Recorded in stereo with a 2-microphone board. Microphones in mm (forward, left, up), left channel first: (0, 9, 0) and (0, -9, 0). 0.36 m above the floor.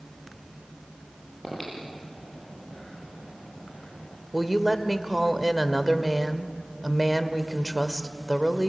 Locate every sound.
1.4 s breathing: 5° right (ahead or behind), 9 m
4.3 s a woman speaking: 5° right (ahead or behind), 1.4 m